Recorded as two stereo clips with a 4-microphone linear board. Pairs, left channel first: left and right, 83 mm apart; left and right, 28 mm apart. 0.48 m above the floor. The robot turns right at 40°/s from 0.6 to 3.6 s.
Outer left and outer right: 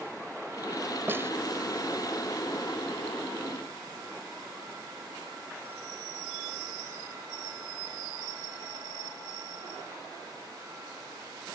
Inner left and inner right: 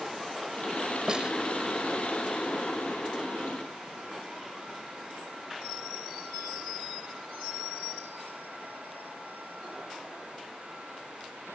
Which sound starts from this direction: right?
A snare drum, at 1.1 s.